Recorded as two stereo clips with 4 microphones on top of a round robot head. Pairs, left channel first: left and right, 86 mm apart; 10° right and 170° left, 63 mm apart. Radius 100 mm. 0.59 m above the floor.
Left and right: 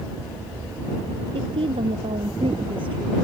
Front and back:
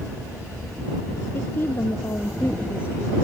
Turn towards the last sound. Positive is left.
turn(degrees=-70)